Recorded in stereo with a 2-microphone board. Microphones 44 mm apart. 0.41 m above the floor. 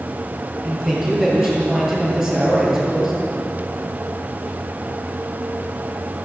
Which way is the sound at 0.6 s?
10° right (ahead or behind).